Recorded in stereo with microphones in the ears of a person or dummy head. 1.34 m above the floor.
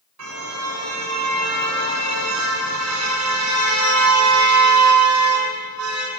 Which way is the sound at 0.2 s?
85° right.